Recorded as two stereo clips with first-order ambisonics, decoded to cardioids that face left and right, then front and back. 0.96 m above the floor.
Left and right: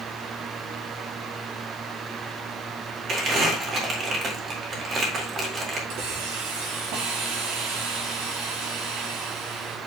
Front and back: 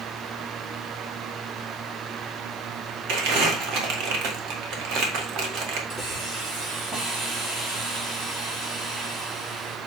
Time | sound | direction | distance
3.1 | crumpling | 150° right | 1.9 m
5.9 | a hiss | 110° right | 5.5 m